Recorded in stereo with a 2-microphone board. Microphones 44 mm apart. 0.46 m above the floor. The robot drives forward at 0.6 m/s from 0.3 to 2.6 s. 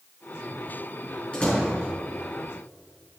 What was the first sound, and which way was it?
A door slam, 30° left (ahead or behind).